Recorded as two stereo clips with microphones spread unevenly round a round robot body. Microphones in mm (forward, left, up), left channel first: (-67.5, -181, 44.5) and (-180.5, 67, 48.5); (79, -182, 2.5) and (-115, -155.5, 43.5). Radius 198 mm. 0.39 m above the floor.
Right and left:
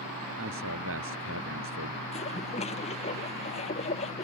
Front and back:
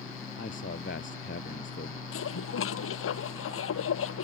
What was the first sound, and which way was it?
A man speaking, 55° left.